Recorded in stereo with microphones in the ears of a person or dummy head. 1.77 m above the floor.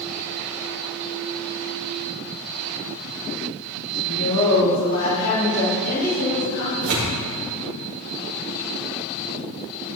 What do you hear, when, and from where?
4.0 s a woman speaking: 75° left (ahead or behind), 3 m; by 6.9 s 80° left, 6 m
6.8 s tearing paper: 75° right (ahead or behind), 3.5 m